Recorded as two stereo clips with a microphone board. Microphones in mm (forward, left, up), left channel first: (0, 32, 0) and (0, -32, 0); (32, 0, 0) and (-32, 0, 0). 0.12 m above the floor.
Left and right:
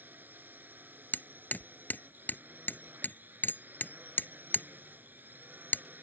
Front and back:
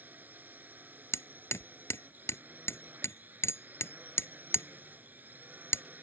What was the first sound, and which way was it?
A drone, 135° right.